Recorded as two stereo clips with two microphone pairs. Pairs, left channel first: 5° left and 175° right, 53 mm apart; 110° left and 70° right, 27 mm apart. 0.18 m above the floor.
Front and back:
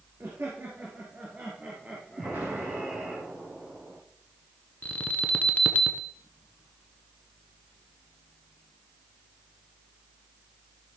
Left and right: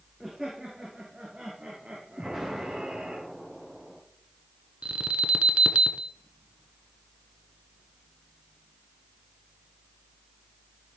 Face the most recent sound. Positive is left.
turn(degrees=-45)